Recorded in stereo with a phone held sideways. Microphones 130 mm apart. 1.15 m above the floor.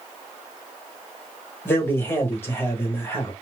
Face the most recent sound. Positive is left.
turn(degrees=15)  # may be behind; listen again after turning